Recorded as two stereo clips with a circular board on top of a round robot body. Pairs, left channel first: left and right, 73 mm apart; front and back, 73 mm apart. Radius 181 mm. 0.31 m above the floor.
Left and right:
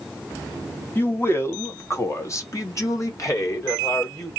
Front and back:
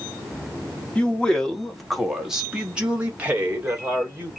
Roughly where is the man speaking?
Ahead left.